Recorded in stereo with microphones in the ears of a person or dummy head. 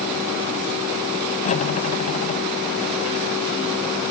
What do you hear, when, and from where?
1.4 s cutlery clinking: 35° left (ahead or behind)